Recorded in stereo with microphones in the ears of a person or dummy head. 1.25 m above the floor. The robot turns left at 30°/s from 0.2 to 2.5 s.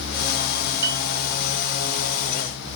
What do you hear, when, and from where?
0.8 s a piano: 20° right (ahead or behind), 1.9 m; by 1.0 s 25° right (ahead or behind), 1.9 m